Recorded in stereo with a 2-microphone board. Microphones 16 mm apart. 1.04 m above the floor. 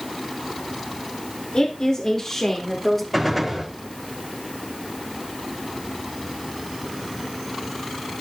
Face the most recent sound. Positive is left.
turn(degrees=0)  # may be behind; listen again after turning